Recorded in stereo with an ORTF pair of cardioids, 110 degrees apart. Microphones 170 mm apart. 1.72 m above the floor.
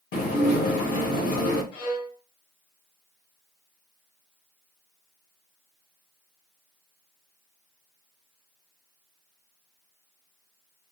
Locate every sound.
0.1 s dishes clattering: 70° left, 2 m
1.7 s a violin: 60° left, 1.2 m